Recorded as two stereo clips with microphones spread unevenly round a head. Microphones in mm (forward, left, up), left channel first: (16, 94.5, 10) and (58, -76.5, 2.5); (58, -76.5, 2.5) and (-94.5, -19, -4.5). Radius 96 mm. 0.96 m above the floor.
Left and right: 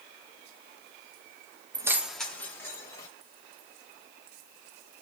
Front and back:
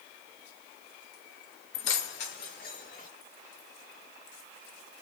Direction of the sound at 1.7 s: 10° right.